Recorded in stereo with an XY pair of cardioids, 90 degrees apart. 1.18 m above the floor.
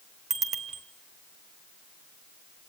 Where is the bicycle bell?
45° right, 3 m.